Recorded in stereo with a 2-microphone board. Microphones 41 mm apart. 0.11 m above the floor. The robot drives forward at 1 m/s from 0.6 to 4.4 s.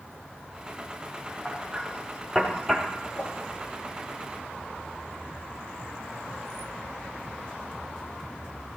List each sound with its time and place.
1.4 s hammering: centre (ahead or behind), 3 m
3.2 s a whoosh: 40° left (ahead or behind), 3.5 m